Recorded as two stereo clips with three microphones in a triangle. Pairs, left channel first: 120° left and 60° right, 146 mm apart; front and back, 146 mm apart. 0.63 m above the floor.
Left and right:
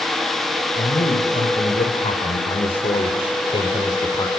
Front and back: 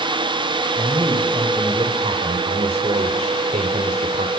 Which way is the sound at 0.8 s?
125° left.